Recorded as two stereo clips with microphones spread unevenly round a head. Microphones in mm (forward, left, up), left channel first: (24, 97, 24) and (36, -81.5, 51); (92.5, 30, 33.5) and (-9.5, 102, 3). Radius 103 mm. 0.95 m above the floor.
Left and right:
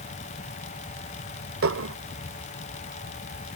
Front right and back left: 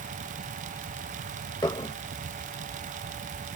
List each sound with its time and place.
1.6 s dishes clattering: 105° right